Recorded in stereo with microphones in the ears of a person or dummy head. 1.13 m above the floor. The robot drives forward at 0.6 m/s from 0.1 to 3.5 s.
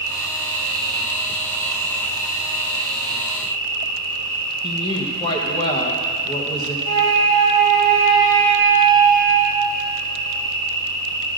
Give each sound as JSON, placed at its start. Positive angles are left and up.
{"t": 0.0, "sound": "an insect", "side_deg": -60, "distance_m": 3.0}
{"t": 4.6, "sound": "a woman speaking", "side_deg": 20, "distance_m": 0.9}
{"t": 6.8, "sound": "a flute", "side_deg": -35, "distance_m": 2.0}